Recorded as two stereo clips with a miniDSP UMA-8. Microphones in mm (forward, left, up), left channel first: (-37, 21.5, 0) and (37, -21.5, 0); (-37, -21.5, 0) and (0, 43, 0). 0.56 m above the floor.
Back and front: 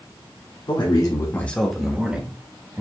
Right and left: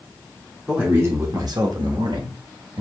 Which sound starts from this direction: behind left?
A man speaking, at 0.7 s.